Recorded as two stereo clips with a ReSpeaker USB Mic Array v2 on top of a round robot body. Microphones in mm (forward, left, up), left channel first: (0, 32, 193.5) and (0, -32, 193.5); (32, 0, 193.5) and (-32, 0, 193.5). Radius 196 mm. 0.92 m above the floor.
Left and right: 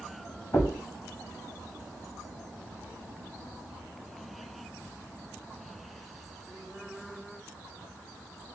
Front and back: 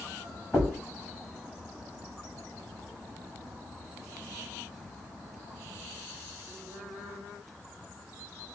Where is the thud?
70° left, 1.6 m.